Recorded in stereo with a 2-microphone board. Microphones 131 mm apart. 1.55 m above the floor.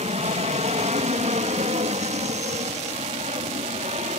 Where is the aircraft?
55° right (ahead or behind); by 4.2 s 60° right (ahead or behind).